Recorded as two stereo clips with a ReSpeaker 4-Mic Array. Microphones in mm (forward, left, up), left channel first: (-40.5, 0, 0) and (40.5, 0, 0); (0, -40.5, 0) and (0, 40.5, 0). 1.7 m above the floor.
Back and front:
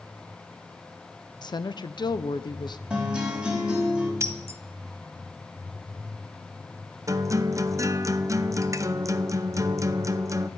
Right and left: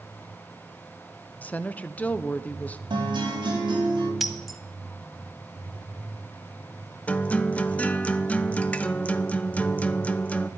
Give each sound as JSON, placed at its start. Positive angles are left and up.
{"t": 1.4, "sound": "a woman speaking", "azimuth_deg": -160, "distance_m": 0.7}
{"t": 2.9, "sound": "a guitar", "azimuth_deg": 80, "distance_m": 4.5}
{"t": 4.2, "sound": "breaking glass", "azimuth_deg": 0, "distance_m": 1.0}
{"t": 7.1, "sound": "a guitar", "azimuth_deg": -25, "distance_m": 0.6}